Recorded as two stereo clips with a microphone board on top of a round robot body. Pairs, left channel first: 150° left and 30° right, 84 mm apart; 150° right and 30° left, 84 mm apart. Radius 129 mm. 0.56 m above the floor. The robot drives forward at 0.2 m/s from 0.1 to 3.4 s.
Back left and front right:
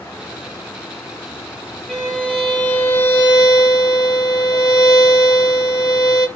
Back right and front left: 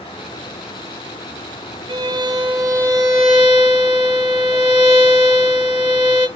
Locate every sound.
1.9 s a violin: 70° left, 0.6 m; by 6.3 s 100° left, 0.6 m